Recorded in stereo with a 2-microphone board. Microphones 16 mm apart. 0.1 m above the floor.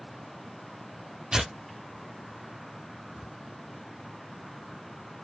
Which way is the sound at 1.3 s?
65° right (ahead or behind).